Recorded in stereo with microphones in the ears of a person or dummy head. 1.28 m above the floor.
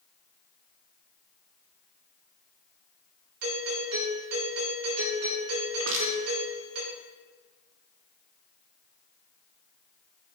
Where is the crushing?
75° right (ahead or behind), 2.5 m.